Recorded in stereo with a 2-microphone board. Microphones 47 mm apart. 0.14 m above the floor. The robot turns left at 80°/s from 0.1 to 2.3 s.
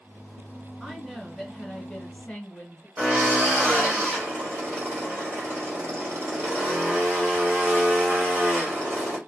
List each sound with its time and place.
0.8 s a woman speaking: 10° right (ahead or behind), 1.4 m; by 2.9 s 20° left (ahead or behind), 1.4 m
3.0 s a drill: 40° right (ahead or behind), 2 m